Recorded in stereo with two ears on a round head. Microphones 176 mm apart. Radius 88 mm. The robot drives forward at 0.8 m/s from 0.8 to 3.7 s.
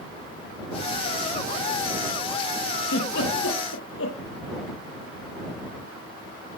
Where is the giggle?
65° left (ahead or behind), 8.5 m; by 4.2 s 70° left (ahead or behind), 8 m.